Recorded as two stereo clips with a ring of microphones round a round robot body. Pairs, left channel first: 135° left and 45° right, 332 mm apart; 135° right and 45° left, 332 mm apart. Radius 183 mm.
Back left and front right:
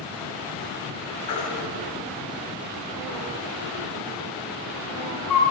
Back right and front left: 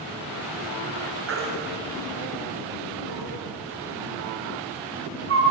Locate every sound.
1.3 s a baby crying: 100° left, 3.5 m